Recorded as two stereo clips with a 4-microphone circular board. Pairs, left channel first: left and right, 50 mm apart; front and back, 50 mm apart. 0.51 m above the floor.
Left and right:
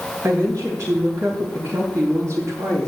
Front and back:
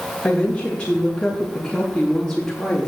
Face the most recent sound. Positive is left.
turn(degrees=-80)